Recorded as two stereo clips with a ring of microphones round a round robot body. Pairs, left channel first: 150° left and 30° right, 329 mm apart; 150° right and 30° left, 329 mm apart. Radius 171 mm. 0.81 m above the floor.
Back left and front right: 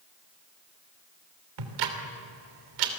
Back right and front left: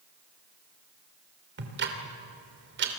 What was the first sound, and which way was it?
Ticking, 25° right.